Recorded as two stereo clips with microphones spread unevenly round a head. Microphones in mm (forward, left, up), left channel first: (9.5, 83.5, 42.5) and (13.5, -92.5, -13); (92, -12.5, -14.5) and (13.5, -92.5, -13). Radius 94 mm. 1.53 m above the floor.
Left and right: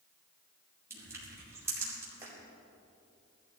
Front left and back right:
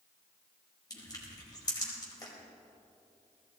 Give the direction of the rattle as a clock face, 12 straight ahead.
I don't hear a rattle.